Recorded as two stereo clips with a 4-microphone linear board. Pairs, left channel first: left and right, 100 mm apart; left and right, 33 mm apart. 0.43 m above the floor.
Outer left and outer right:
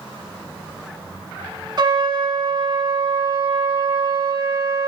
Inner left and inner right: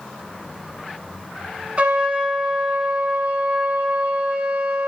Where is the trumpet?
50° right (ahead or behind), 1.1 m.